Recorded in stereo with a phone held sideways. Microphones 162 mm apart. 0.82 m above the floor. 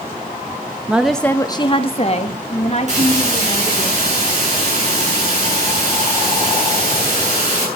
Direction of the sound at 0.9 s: 10° right (ahead or behind).